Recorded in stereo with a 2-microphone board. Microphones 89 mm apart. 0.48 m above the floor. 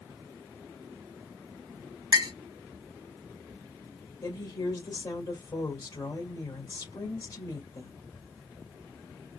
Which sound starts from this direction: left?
A woman speaking, at 4.2 s.